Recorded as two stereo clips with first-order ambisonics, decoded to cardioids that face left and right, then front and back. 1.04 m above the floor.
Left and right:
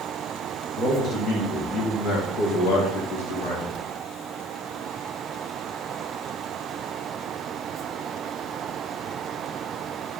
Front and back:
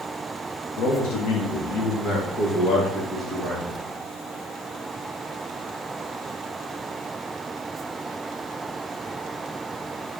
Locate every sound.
0.8 s a man speaking: 15° left, 1.3 m; by 3.8 s 100° left, 1.2 m